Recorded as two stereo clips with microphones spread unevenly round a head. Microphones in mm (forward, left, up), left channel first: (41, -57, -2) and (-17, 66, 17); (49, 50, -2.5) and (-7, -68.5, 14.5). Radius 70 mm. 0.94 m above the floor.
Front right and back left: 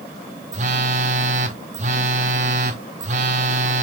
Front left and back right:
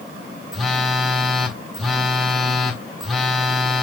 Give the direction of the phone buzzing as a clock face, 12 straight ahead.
7 o'clock.